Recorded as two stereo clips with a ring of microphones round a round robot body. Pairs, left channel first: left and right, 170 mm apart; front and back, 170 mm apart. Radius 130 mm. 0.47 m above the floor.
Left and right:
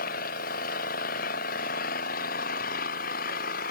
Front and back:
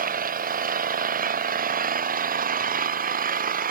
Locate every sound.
0.0 s an engine running: 145° left